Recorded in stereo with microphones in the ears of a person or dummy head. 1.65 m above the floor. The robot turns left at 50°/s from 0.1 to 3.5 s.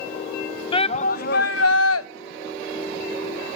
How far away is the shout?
About 0.5 m.